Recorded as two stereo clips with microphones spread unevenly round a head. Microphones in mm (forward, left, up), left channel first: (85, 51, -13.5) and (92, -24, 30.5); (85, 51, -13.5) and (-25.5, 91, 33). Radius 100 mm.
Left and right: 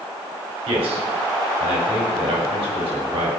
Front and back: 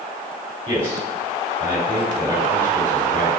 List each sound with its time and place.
0.7 s a man speaking: 95° right, 3.5 m